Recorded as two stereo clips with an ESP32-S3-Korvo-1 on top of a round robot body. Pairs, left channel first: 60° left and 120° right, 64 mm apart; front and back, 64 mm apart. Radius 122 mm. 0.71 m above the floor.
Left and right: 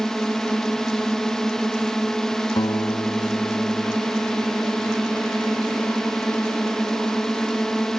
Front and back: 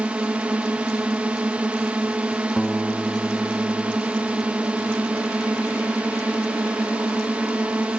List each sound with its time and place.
0.0 s a drone: 135° left
2.6 s a guitar: 95° left